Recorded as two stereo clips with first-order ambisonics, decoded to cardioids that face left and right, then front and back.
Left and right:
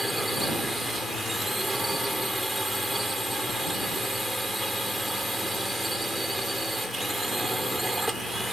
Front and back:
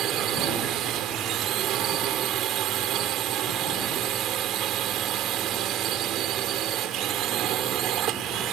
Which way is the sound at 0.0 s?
175° right.